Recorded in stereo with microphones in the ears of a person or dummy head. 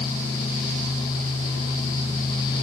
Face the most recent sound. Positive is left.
No sound to turn to.